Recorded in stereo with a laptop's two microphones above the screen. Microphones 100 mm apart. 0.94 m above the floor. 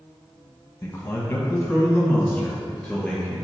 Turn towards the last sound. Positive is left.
turn(degrees=5)  # may be behind; listen again after turning